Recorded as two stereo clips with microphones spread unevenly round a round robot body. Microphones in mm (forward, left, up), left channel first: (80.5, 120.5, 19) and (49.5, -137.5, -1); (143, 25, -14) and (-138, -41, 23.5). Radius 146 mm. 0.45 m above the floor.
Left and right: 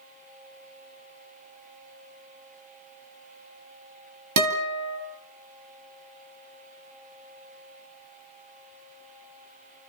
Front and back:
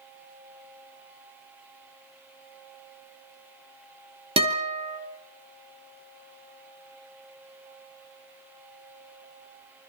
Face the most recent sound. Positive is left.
turn(degrees=-95)